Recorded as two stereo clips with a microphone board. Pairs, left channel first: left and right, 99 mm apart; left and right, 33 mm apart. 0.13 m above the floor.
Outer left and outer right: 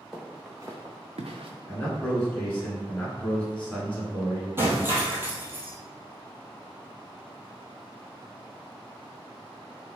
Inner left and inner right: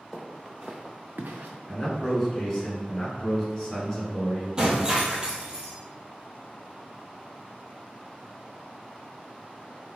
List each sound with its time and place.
0.1 s footsteps: 5° right (ahead or behind), 1.2 m; by 1.5 s 60° right (ahead or behind), 0.8 m
1.7 s a man speaking: 15° left (ahead or behind), 1.2 m
4.6 s breaking glass: 25° right (ahead or behind), 0.9 m